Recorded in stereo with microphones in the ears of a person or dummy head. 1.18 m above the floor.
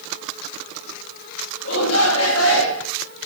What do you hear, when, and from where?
1.6 s a shout: 80° left, 3.5 m; by 2.9 s 90° left, 3.5 m